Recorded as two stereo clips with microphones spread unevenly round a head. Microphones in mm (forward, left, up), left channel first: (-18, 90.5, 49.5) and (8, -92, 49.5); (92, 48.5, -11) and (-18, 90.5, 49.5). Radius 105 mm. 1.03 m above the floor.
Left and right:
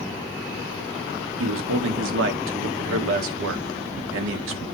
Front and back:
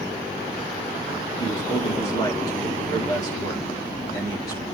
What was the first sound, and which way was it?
A man speaking, 85° right.